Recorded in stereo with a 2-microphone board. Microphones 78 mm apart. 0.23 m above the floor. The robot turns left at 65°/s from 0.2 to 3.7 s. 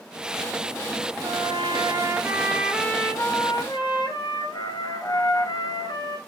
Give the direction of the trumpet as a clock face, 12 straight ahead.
3 o'clock.